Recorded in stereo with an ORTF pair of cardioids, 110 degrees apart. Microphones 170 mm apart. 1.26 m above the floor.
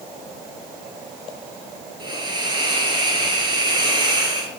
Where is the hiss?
25° right, 5.5 m.